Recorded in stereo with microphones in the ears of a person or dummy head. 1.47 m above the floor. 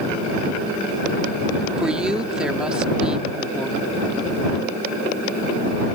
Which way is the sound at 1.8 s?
5° right (ahead or behind).